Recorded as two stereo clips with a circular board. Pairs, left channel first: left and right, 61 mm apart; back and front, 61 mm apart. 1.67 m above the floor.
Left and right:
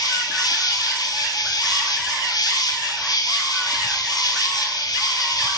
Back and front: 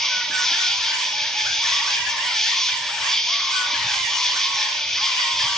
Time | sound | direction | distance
0.0 | an insect | 95° left | 3 m